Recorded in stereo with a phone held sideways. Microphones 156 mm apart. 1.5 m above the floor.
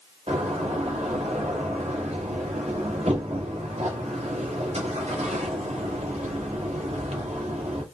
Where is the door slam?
45° right (ahead or behind), 2 m.